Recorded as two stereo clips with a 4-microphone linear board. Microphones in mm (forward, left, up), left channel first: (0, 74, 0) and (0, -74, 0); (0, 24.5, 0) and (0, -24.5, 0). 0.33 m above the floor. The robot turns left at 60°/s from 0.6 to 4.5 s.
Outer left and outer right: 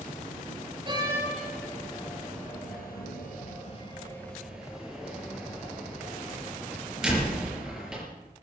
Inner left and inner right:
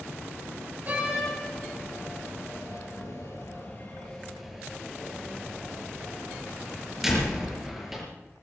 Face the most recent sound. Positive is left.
turn(degrees=-5)  # may be behind; listen again after turning